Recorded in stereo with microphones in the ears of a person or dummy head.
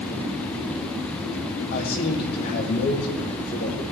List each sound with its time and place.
1.7 s a man speaking: 50° left (ahead or behind), 3 m